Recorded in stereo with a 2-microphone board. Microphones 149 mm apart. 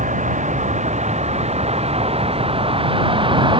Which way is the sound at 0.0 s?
55° right (ahead or behind).